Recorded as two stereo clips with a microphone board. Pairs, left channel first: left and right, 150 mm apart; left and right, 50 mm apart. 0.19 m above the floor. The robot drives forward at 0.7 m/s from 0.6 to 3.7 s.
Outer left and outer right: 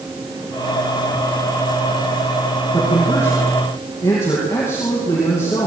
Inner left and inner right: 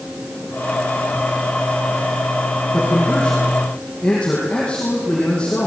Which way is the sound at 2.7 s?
15° left (ahead or behind).